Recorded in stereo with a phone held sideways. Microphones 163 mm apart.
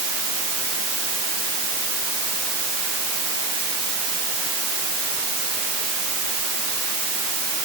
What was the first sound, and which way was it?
Only background noise.